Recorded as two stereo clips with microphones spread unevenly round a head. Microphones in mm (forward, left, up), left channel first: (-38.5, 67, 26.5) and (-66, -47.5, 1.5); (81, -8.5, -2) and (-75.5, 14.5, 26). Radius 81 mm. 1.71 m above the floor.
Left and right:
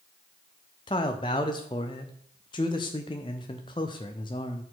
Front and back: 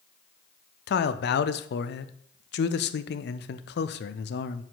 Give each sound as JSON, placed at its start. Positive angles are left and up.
{"t": 0.9, "sound": "a man speaking", "azimuth_deg": 10, "distance_m": 0.5}